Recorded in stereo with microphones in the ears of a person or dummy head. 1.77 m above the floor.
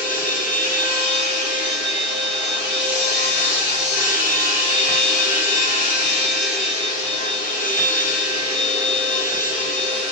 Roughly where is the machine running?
Centre.